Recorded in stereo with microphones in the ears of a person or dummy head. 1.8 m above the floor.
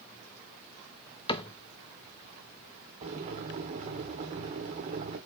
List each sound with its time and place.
1.3 s a cupboard door: 25° left (ahead or behind), 0.6 m
3.0 s boiling: 25° right (ahead or behind), 1.5 m